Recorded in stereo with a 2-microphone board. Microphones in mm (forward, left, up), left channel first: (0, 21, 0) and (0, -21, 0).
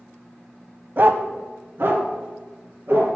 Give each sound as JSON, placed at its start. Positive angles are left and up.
{"t": 1.0, "sound": "a dog barking", "side_deg": -45, "distance_m": 0.6}